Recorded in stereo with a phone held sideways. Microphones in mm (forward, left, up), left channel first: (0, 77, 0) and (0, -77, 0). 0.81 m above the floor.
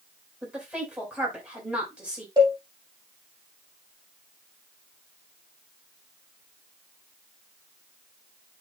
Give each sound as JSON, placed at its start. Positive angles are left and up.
{"t": 0.4, "sound": "a woman speaking", "side_deg": -10, "distance_m": 4.0}
{"t": 2.4, "sound": "a cowbell", "side_deg": -25, "distance_m": 4.0}